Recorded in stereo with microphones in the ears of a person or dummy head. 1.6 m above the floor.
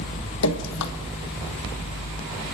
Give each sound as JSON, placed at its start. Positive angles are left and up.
{"t": 0.4, "sound": "dripping", "side_deg": 80, "distance_m": 1.4}